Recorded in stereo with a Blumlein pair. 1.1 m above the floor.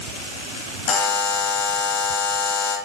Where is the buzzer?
35° left, 0.7 m.